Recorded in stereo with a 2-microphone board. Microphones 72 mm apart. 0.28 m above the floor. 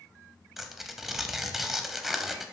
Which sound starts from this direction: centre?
Tearing paper, at 0.6 s.